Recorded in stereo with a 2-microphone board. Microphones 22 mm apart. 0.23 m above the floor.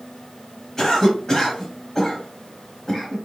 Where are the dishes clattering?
No dishes clattering in this recording.